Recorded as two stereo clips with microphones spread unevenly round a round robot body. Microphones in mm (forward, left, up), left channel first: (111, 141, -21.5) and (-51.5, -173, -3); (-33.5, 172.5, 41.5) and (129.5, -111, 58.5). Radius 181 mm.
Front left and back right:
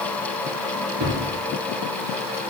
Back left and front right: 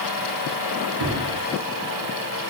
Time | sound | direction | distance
1.0 | a thud | 75° right | 3 m